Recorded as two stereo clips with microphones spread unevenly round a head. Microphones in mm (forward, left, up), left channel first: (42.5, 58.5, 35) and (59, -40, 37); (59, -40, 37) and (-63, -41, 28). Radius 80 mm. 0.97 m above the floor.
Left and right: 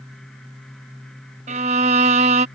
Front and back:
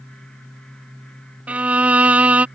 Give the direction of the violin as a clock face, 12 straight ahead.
3 o'clock.